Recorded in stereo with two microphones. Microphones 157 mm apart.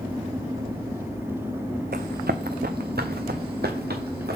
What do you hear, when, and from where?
1.9 s running footsteps: 80° right, 0.6 m; by 4.4 s 90° right, 1.9 m